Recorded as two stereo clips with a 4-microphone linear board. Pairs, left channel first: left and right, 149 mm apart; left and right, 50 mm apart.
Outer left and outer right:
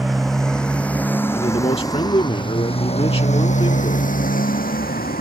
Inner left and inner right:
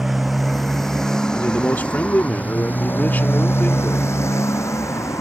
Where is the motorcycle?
Centre (ahead or behind); by 5.2 s 80° left.